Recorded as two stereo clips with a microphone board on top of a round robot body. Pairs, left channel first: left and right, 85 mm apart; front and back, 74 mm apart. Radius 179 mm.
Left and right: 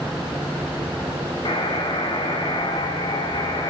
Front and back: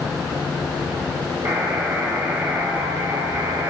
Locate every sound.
1.4 s a buzzer: 120° left, 3 m